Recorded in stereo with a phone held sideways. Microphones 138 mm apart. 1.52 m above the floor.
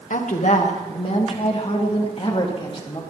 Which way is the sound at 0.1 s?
65° left (ahead or behind).